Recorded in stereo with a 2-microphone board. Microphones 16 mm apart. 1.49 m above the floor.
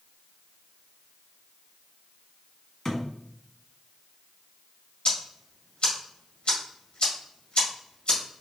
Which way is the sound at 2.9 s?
25° left (ahead or behind).